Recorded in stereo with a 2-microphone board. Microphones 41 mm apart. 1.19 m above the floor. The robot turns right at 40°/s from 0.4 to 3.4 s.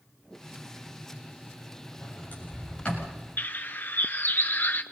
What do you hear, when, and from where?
2.0 s a sliding door: 65° left (ahead or behind), 7.5 m; by 3.2 s 15° left (ahead or behind), 7.5 m
3.4 s a bird: 50° left (ahead or behind), 1.1 m